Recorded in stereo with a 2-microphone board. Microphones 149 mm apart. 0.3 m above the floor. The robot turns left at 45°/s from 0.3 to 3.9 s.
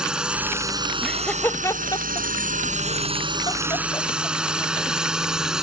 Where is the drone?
5° right (ahead or behind).